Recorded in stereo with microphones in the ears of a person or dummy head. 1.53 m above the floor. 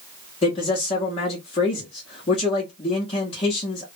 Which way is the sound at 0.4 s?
35° left (ahead or behind).